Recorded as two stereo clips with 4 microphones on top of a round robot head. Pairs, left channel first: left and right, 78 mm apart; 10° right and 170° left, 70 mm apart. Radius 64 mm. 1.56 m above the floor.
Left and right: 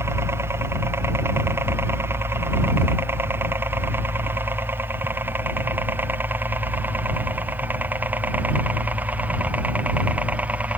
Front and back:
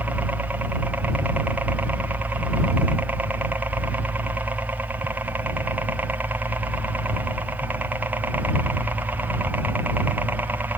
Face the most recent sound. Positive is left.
turn(degrees=-145)